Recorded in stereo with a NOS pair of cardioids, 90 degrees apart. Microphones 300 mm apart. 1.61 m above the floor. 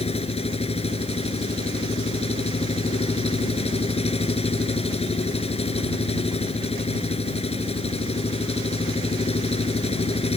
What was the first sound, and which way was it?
An engine running, 20° left.